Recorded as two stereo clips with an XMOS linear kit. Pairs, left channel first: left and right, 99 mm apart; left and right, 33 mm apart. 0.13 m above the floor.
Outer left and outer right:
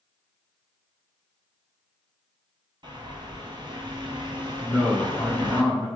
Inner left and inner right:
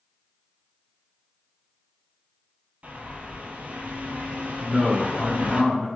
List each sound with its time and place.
2.8 s a bird: 50° right (ahead or behind), 0.8 m
4.6 s a man speaking: 10° left (ahead or behind), 1.2 m